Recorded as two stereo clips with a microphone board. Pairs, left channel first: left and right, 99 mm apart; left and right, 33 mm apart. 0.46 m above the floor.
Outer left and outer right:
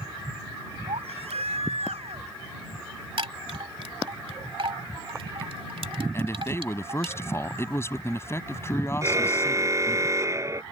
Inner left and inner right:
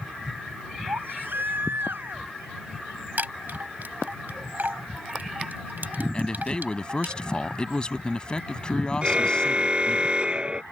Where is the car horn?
30° right (ahead or behind).